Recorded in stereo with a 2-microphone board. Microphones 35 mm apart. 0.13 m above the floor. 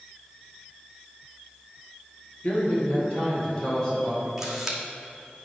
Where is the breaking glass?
No breaking glass in this recording.